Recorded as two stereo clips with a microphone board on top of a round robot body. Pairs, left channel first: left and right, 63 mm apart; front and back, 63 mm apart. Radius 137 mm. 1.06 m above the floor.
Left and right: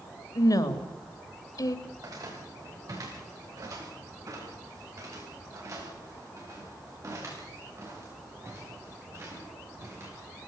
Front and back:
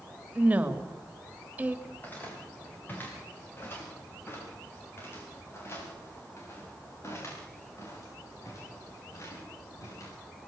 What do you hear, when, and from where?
0.3 s a woman speaking: 115° left, 3 m
1.9 s footsteps: 65° right, 9 m; by 10.1 s 40° right, 12 m